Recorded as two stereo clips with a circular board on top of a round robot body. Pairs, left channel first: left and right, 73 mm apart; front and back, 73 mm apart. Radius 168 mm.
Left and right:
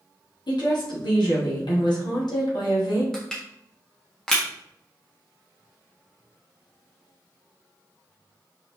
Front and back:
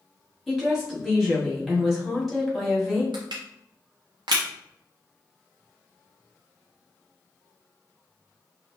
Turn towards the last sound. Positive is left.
turn(degrees=175)